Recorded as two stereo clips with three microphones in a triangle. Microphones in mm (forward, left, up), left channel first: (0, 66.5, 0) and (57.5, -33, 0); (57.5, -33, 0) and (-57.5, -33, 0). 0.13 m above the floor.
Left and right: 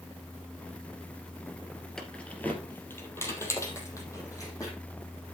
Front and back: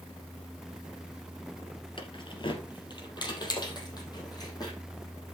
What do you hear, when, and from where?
2.0 s keys jangling: 35° left, 1.8 m; by 4.8 s 55° left, 4.5 m